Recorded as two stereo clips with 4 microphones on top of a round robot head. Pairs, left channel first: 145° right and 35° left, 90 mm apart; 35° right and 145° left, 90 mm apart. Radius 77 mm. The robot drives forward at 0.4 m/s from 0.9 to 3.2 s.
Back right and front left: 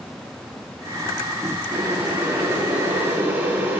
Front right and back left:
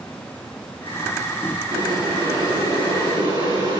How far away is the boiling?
About 7.5 m.